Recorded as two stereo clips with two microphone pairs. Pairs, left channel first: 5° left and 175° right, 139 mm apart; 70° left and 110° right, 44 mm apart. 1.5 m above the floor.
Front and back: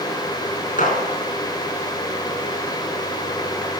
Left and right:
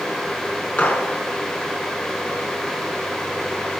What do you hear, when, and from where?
0.8 s a gunshot: 20° left, 5 m